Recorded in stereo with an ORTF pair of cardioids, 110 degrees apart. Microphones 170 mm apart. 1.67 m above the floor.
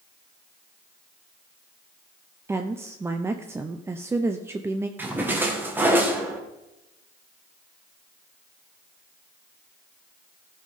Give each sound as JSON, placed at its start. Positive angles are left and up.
{"t": 2.5, "sound": "a woman speaking", "azimuth_deg": -15, "distance_m": 0.7}
{"t": 5.0, "sound": "a splash", "azimuth_deg": -10, "distance_m": 1.8}